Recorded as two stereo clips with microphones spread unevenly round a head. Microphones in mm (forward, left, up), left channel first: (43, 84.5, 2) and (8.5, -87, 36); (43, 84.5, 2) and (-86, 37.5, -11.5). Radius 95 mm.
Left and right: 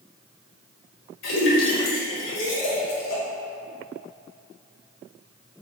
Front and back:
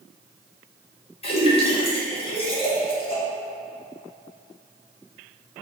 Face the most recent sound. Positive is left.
turn(degrees=65)